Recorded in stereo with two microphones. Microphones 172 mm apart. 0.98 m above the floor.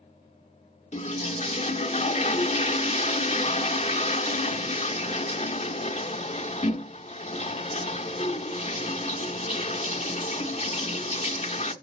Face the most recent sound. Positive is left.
turn(degrees=40)  # may be behind; listen again after turning